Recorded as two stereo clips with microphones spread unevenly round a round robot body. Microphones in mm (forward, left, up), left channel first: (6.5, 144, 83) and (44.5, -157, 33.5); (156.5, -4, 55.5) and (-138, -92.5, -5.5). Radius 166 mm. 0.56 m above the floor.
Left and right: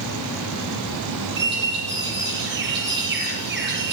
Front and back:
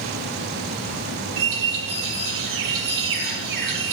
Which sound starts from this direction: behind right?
A bird, at 1.4 s.